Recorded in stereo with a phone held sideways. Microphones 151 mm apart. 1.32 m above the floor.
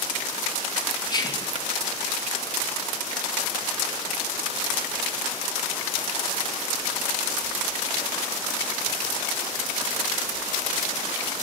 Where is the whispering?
30° left (ahead or behind), 0.8 m.